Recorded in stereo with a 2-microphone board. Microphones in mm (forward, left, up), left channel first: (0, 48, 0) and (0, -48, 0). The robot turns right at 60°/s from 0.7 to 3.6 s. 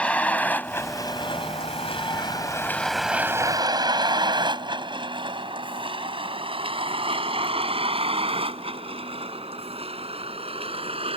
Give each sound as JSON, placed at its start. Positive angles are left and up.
{"t": 0.0, "sound": "a vehicle", "side_deg": 10}